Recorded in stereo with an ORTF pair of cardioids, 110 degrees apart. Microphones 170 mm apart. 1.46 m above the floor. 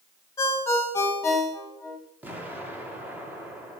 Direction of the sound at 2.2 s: 10° right.